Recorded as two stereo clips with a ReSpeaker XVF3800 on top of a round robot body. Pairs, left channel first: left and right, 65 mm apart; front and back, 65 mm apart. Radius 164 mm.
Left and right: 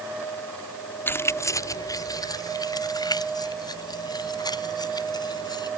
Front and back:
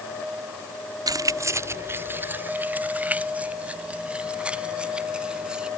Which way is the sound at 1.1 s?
150° left.